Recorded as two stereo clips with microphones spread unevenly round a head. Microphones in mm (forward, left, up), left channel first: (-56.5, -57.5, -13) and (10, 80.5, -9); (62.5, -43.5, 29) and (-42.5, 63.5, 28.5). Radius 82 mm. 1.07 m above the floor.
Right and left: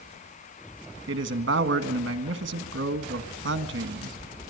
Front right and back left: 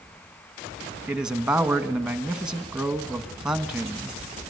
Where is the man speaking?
50° left, 1.8 m.